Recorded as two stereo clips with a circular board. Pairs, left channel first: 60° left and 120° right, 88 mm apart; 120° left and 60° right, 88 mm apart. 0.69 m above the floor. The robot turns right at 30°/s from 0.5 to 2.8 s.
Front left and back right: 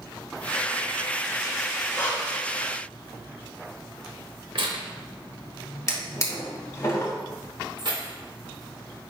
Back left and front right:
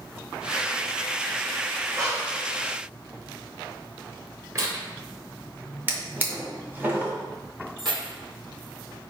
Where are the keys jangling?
90° right, 1.7 m.